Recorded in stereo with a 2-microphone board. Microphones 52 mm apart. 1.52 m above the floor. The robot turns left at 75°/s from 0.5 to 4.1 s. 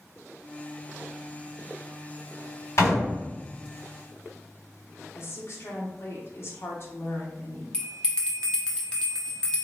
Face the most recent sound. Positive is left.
turn(degrees=15)  # may be behind; listen again after turning